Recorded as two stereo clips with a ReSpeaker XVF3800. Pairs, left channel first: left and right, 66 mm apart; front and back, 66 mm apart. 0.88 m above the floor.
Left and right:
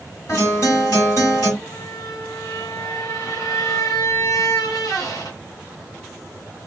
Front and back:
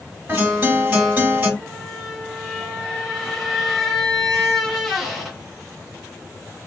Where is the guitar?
120° left, 1.8 m.